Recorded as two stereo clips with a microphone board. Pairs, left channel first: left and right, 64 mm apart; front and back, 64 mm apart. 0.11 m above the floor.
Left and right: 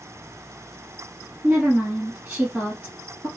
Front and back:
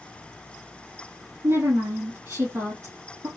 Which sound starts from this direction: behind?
A woman speaking, at 1.4 s.